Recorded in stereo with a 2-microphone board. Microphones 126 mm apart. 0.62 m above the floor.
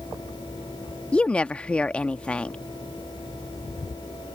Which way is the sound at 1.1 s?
10° left (ahead or behind).